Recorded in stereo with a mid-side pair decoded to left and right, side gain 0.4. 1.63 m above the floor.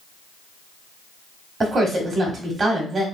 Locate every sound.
1.6 s a woman speaking: 35° right, 1.7 m